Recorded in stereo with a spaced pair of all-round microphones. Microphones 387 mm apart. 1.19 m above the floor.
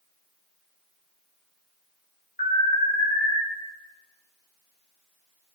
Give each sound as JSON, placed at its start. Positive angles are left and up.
{"t": 2.4, "sound": "an alarm", "side_deg": 20, "distance_m": 2.5}